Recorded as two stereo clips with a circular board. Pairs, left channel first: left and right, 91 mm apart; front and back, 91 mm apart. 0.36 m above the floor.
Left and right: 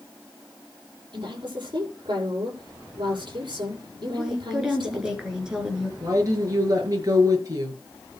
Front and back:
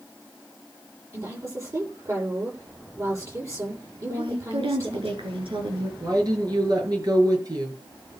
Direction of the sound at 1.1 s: 125° right.